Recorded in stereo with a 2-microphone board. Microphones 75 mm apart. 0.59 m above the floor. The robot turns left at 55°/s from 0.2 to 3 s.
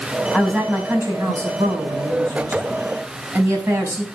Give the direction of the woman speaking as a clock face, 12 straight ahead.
12 o'clock.